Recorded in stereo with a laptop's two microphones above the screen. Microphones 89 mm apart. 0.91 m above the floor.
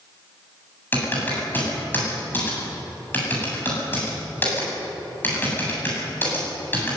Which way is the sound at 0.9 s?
20° left (ahead or behind).